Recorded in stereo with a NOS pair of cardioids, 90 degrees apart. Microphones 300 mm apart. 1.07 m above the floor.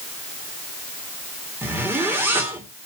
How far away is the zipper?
About 3 m.